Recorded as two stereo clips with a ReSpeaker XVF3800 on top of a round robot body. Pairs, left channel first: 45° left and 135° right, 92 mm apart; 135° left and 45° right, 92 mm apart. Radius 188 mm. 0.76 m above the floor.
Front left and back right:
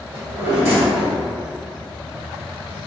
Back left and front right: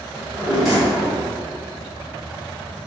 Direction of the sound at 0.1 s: 130° right.